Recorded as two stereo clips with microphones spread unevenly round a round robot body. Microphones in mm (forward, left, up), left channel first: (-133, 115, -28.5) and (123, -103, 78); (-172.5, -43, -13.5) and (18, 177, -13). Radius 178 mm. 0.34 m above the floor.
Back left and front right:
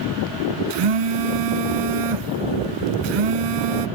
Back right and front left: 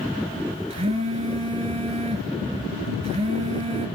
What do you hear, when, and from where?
0.7 s a phone buzzing: 25° right, 1.0 m